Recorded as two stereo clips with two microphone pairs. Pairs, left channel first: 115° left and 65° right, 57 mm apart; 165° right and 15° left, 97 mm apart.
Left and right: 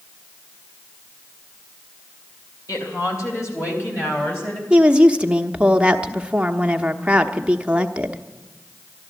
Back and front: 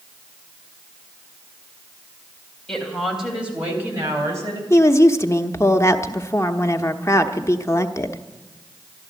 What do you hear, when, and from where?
2.7 s a woman speaking: 110° left, 3.5 m; by 4.6 s 65° left, 4 m
4.7 s a woman speaking: 125° right, 0.9 m